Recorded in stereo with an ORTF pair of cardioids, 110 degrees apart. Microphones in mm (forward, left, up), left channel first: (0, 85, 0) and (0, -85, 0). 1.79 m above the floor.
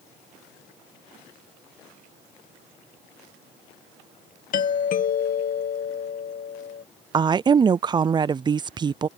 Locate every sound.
4.5 s a doorbell: 55° left
7.1 s a woman speaking: 25° right